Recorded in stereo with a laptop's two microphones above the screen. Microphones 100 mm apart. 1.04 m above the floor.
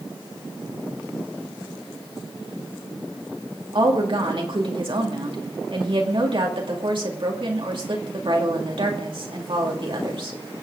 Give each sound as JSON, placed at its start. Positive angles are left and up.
{"t": 3.7, "sound": "a woman speaking", "side_deg": -60, "distance_m": 2.0}